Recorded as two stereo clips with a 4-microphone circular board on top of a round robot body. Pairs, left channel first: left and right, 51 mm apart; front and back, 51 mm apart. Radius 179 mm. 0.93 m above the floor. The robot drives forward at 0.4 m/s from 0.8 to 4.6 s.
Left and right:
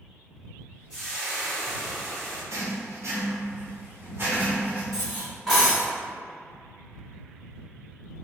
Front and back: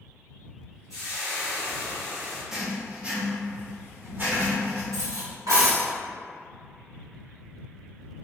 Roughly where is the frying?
Ahead.